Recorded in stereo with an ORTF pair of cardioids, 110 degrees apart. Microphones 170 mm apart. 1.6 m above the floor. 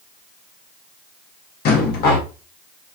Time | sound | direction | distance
1.6 | a rattle | 70° left | 1.5 m